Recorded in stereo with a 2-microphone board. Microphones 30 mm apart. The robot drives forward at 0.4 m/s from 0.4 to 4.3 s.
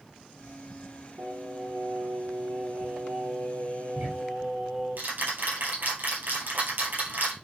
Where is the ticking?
65° right (ahead or behind), 6 m.